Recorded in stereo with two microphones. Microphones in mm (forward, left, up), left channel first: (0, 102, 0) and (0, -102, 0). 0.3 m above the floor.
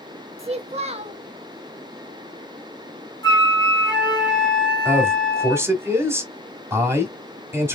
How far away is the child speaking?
About 0.6 m.